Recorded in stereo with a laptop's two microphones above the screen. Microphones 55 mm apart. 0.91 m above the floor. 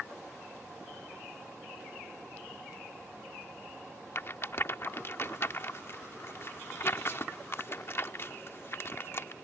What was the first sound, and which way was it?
A rattle, 45° left (ahead or behind).